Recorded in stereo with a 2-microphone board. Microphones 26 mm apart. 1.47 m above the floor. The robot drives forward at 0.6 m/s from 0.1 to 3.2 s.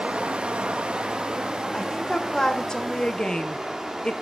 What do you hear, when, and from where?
0.0 s running water: 45° right (ahead or behind), 0.9 m; by 4.2 s 20° right (ahead or behind), 2.0 m
1.7 s a woman speaking: 20° left (ahead or behind), 1.9 m; by 4.1 s 35° left (ahead or behind), 1.1 m